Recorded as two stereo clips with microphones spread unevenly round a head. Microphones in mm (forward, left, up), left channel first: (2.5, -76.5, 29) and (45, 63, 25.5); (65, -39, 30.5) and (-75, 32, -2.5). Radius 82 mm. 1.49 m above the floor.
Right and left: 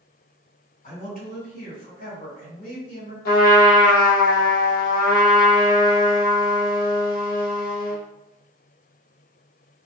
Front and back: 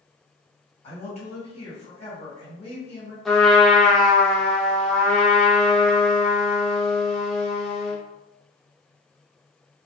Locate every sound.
0.8 s a man speaking: 75° right, 1.8 m
3.2 s a trumpet: 120° right, 0.6 m